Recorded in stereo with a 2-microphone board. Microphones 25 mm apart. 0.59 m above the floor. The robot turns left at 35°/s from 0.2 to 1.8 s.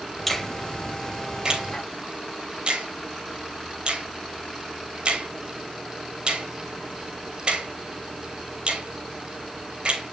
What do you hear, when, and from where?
0.3 s a finger snap: 5° left (ahead or behind), 3 m; by 10.1 s 45° right (ahead or behind), 3 m